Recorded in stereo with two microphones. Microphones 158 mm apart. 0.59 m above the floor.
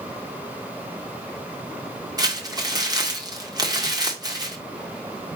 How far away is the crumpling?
About 1.7 m.